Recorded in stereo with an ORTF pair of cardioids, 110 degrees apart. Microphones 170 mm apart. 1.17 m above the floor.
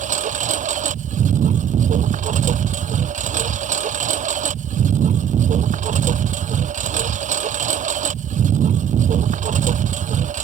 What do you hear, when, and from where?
0.0 s a lawn mower: 45° right